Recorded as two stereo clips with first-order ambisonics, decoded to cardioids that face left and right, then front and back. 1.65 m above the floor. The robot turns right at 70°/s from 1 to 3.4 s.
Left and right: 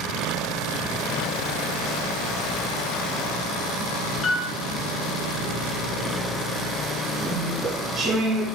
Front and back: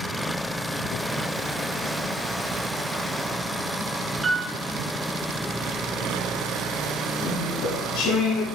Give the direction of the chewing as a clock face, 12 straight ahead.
1 o'clock.